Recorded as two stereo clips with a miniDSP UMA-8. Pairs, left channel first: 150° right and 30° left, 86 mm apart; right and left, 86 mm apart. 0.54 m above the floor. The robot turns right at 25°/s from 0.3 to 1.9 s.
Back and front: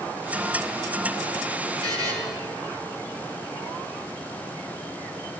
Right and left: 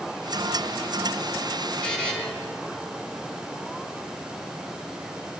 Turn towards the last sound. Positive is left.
turn(degrees=-15)